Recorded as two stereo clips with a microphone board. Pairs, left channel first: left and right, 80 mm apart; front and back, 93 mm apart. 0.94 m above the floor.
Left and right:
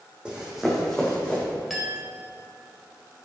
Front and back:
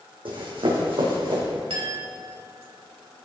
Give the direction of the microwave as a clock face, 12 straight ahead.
No microwave in this recording.